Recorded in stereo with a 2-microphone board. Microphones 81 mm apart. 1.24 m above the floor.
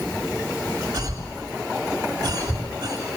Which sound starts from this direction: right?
A cough, at 0.9 s.